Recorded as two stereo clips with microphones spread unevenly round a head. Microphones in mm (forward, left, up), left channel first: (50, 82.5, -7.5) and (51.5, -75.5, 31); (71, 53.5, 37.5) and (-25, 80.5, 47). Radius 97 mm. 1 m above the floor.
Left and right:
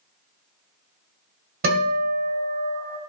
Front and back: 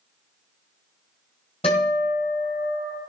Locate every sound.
1.6 s a guitar: 75° right, 2.0 m